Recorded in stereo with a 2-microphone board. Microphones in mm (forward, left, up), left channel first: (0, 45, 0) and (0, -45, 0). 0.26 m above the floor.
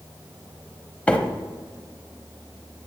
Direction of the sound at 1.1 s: 15° left (ahead or behind).